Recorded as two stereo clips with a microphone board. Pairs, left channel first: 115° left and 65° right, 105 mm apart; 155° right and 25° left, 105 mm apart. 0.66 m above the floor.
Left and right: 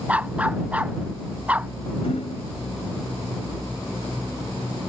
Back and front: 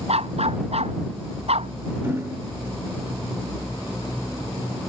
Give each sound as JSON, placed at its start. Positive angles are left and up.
{"t": 0.1, "sound": "a dog barking", "azimuth_deg": 10}
{"t": 2.0, "sound": "hammering", "azimuth_deg": 90}